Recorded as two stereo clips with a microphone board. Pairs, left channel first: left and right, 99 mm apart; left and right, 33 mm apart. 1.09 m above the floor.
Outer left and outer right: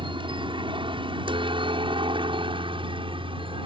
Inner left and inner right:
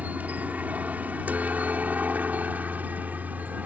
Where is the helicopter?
55° right (ahead or behind); by 3.7 s 60° right (ahead or behind).